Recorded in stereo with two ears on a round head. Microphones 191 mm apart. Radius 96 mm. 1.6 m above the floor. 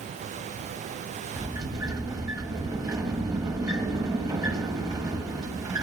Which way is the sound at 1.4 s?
15° right (ahead or behind).